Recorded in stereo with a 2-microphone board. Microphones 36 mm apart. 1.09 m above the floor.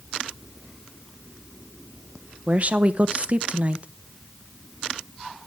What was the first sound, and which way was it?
A woman speaking, 35° right (ahead or behind).